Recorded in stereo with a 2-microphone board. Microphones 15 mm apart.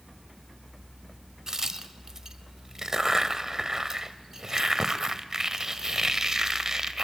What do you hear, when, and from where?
1.5 s a crack: 35° right (ahead or behind), 1.3 m